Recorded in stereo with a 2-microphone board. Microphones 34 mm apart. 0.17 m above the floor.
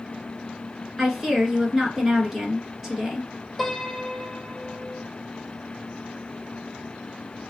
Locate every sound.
1.0 s a woman speaking: 5° right (ahead or behind), 1.9 m
3.6 s a piano: centre (ahead or behind), 1.0 m